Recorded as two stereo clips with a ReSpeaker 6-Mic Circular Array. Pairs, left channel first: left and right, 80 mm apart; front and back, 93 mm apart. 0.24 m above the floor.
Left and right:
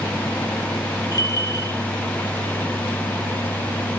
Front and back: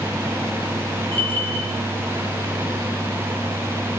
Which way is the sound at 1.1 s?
65° left.